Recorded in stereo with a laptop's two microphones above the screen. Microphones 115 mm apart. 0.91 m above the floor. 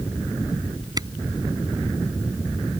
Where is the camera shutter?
35° right (ahead or behind).